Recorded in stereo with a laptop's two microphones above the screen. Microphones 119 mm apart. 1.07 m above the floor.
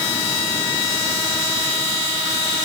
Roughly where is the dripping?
I don't hear dripping.